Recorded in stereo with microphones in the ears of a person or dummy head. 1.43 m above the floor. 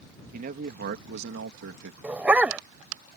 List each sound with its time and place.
0.3 s a man speaking: 50° right (ahead or behind); by 1.9 s 70° right (ahead or behind)
2.0 s a dog barking: 5° right (ahead or behind)